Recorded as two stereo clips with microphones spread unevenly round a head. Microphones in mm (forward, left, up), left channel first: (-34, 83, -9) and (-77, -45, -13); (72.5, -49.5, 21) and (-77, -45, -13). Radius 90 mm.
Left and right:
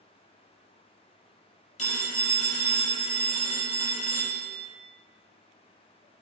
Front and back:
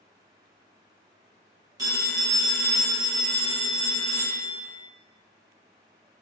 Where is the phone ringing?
105° left, 0.8 m.